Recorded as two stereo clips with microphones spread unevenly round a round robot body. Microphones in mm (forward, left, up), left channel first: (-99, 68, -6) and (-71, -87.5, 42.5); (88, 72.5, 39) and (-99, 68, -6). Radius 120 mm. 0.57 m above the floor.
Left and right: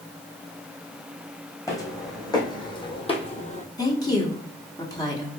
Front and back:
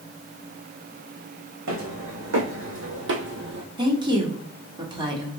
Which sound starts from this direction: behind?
Footsteps, at 1.7 s.